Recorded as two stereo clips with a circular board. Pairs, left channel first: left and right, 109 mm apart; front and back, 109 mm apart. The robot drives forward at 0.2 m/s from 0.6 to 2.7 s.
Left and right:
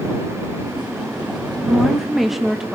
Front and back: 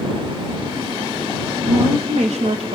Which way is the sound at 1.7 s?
Straight behind.